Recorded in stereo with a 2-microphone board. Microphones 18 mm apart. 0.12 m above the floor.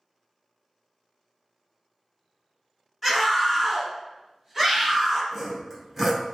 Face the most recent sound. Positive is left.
turn(degrees=0)  # may be behind; listen again after turning